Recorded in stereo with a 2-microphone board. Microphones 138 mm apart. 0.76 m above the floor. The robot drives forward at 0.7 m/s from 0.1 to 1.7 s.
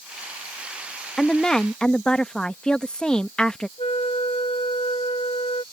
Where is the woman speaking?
5° left (ahead or behind).